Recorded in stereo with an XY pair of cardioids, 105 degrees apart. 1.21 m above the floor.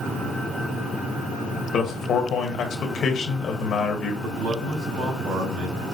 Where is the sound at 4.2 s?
70° right, 4 m.